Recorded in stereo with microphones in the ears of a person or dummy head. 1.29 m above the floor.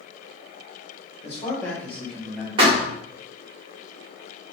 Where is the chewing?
No chewing in this recording.